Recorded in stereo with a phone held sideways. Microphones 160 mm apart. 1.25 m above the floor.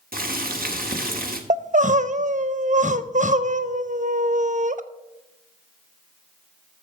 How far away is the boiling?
About 1.4 m.